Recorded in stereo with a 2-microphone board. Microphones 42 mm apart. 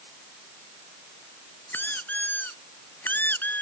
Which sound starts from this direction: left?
A squeak, at 1.7 s.